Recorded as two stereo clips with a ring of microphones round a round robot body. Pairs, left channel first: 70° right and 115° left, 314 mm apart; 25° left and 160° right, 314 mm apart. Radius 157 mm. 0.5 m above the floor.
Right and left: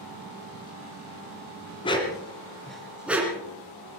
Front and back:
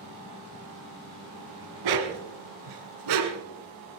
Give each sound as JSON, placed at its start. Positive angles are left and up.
{"t": 1.8, "sound": "a dog barking", "azimuth_deg": -140, "distance_m": 1.8}